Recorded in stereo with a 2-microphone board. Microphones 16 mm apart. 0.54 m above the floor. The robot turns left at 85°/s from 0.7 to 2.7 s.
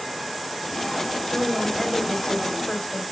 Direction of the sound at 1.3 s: 150° right.